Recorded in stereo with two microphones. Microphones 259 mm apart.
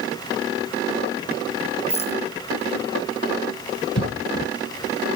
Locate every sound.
1.9 s a rattle: 25° left (ahead or behind)
4.0 s a cough: 60° left (ahead or behind)